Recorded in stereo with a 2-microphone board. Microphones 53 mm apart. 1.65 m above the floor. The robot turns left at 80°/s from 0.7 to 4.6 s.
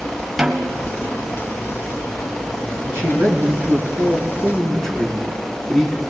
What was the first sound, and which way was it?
A snare drum, 5° right (ahead or behind).